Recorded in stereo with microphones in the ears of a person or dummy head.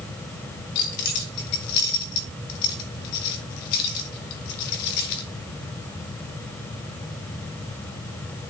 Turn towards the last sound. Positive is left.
turn(degrees=55)  # may be behind; listen again after turning